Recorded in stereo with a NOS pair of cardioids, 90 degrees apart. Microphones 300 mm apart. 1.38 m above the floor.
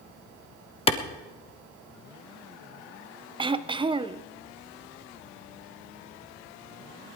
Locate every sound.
0.9 s a clap: 20° left, 1.3 m
3.4 s throat clearing: 15° right, 0.6 m